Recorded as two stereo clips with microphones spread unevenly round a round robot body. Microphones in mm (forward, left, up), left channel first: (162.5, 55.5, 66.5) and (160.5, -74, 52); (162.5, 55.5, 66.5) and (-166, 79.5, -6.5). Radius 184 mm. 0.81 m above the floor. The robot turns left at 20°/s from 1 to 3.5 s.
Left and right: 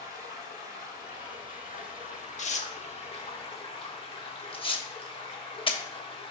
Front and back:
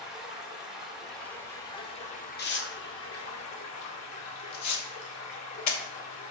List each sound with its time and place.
0.0 s running water: 90° left, 2.5 m; by 6.3 s 40° left, 2.5 m
2.4 s tearing paper: 60° left, 1.4 m; by 5.8 s 35° left, 1.4 m